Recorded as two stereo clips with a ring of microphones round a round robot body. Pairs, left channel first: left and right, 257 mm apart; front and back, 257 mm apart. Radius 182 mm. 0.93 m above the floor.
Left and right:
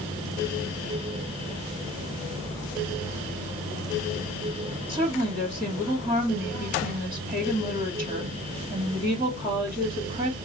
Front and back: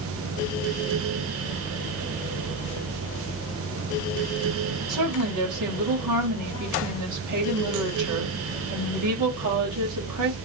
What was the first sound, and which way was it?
A woman speaking, 175° right.